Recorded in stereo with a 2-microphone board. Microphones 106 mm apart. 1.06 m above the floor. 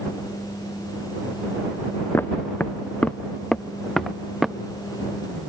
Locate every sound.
2.1 s footsteps: 20° left (ahead or behind); by 4.5 s 5° right (ahead or behind)